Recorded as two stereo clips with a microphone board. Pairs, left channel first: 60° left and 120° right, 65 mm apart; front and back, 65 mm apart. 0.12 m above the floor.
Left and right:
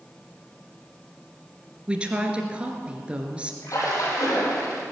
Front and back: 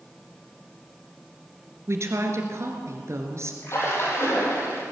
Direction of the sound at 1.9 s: 175° left.